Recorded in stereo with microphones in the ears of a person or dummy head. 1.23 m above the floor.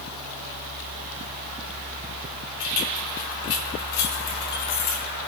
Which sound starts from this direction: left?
Keys jangling, at 2.6 s.